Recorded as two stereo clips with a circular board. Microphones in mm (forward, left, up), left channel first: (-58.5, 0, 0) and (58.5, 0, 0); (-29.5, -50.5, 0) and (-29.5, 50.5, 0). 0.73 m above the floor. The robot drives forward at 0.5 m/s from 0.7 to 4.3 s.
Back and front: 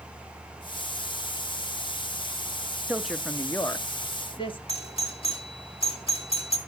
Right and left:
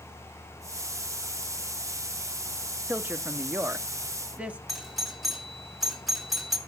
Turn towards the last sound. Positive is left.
turn(degrees=180)